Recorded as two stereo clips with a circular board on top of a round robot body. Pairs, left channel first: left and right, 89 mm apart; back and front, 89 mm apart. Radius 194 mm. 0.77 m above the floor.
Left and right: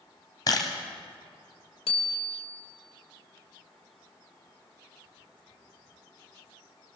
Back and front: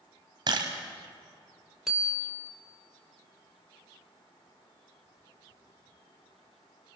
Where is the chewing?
No chewing in this recording.